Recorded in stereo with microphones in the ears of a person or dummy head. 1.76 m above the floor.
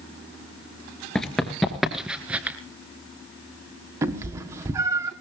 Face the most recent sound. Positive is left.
turn(degrees=-20)  # may be behind; listen again after turning